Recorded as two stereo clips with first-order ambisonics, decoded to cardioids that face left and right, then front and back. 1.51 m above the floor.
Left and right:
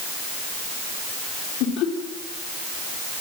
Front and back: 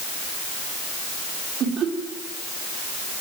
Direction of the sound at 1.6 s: 125° left.